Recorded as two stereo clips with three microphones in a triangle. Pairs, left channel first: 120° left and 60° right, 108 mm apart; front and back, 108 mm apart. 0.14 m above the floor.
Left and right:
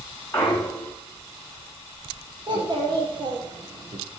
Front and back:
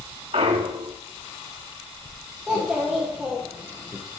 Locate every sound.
0.3 s a clunk: 175° right, 1.1 m
2.5 s a child speaking: 100° right, 3 m